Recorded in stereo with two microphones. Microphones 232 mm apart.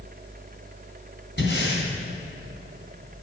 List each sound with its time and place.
1.4 s breathing: 50° left (ahead or behind), 2.5 m